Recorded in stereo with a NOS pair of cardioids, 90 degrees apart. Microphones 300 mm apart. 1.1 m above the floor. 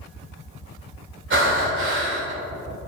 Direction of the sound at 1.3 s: 40° right.